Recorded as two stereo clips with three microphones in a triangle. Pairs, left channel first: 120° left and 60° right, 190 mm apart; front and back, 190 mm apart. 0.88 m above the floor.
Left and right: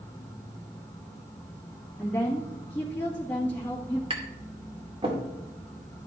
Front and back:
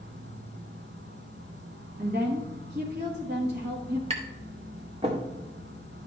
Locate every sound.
0.0 s an insect: 165° right, 1.4 m
2.0 s a woman speaking: 160° right, 1.6 m
4.1 s tapping: 120° right, 2.0 m